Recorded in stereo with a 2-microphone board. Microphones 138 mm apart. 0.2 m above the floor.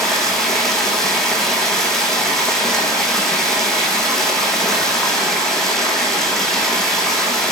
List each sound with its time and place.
0.0 s running water: 5° left (ahead or behind), 1.3 m